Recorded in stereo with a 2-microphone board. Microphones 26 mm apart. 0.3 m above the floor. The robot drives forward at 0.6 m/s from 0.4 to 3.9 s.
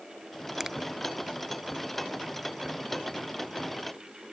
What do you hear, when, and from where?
0.6 s a finger snap: 15° right (ahead or behind)